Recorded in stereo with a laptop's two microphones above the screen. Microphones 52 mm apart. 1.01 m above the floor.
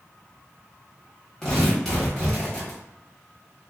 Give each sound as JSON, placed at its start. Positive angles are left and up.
{"t": 1.4, "sound": "tearing paper", "side_deg": 10, "distance_m": 1.3}